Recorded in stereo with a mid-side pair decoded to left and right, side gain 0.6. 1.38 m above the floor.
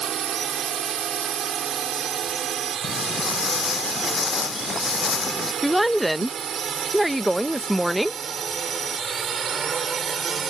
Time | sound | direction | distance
0.0 | a drone | 50° right | ?
2.8 | footsteps | 35° left | ?
5.6 | a woman speaking | 5° right | ?